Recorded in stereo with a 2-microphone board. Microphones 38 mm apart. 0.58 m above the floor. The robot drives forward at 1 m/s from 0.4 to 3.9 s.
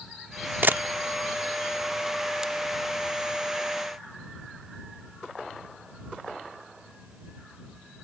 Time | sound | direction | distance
0.6 | a camera shutter | 60° right (ahead or behind) | ?